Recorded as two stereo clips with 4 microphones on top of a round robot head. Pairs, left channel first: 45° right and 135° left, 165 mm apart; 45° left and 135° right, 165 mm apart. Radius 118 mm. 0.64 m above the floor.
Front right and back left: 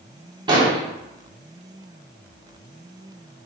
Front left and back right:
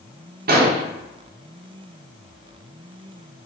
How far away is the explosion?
About 1.1 m.